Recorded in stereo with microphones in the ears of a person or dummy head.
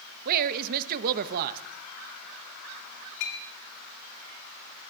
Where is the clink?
70° left (ahead or behind), 2.5 m.